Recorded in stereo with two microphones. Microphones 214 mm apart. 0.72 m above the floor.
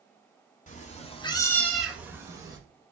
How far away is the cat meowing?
About 0.8 m.